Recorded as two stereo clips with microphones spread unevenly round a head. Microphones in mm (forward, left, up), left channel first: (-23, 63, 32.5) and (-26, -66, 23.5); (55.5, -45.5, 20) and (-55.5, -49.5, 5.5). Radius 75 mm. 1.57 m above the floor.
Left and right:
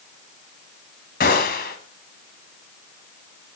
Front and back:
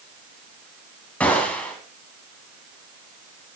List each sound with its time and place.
1.2 s a gunshot: 80° left, 2.5 m